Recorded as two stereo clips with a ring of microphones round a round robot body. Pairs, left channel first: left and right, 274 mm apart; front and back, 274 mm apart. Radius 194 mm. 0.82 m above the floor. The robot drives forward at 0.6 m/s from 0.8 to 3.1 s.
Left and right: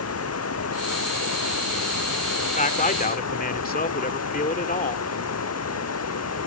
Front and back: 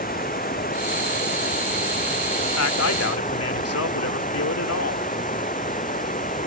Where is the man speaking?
25° left; by 5.0 s 30° left.